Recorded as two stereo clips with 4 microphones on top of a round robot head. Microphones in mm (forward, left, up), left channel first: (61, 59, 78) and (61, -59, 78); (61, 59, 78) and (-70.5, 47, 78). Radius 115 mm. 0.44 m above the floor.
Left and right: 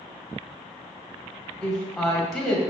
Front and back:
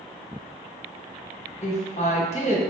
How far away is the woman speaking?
About 1.3 m.